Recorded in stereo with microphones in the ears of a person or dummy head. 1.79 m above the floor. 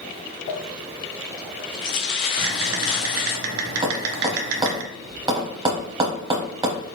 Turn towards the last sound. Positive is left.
turn(degrees=-20)  # may be behind; listen again after turning